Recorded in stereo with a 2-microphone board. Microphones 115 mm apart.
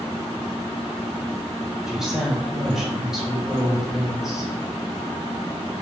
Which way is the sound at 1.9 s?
Centre (ahead or behind).